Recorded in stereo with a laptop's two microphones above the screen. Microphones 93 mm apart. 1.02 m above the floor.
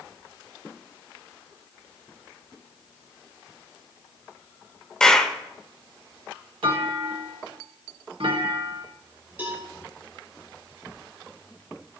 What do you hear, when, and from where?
5.0 s a clap: 5° left (ahead or behind), 0.7 m
6.6 s a clunk: 70° right (ahead or behind), 1.6 m
9.4 s a cowbell: 20° right (ahead or behind), 5 m